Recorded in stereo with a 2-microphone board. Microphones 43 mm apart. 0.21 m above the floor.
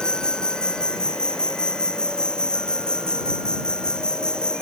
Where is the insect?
15° left (ahead or behind).